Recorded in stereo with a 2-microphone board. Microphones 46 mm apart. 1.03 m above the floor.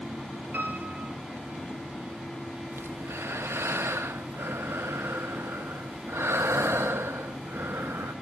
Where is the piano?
40° right (ahead or behind), 4.5 m.